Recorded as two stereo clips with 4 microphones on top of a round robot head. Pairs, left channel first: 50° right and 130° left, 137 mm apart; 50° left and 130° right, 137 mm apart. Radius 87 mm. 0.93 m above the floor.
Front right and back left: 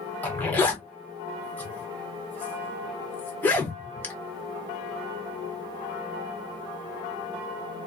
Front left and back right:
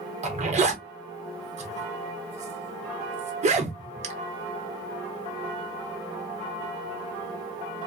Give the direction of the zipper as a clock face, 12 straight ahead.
4 o'clock.